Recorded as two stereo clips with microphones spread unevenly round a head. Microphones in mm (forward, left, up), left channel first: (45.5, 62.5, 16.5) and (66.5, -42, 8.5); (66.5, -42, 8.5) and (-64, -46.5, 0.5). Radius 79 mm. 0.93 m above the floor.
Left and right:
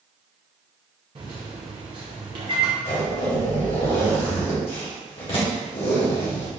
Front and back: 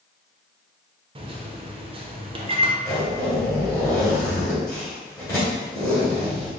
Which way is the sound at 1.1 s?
130° right.